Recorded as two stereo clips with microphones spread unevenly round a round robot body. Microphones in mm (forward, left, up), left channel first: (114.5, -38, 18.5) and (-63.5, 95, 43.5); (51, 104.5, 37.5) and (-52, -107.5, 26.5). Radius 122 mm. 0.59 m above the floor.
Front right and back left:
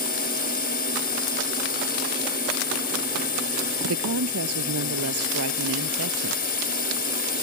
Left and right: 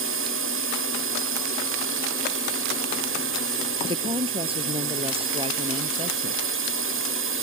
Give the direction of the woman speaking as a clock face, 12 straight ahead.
6 o'clock.